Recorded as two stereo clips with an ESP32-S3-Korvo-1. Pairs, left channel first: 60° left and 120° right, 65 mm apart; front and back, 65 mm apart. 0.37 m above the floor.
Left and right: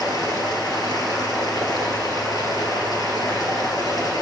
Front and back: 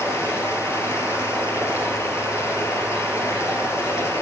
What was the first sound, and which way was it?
Running water, 45° left.